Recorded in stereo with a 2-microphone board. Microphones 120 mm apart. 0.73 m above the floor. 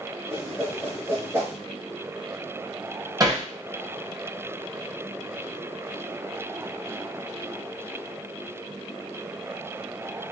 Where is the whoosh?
20° right (ahead or behind), 1.6 m.